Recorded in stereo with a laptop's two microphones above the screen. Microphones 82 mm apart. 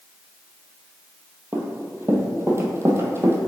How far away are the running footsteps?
About 1.2 m.